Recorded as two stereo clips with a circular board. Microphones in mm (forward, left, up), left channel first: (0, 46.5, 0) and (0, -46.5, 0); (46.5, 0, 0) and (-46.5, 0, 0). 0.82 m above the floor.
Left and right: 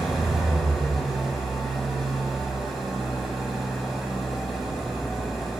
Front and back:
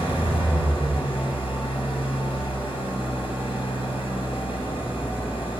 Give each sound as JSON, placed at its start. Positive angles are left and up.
{"t": 0.0, "sound": "an engine running", "azimuth_deg": 0, "distance_m": 2.5}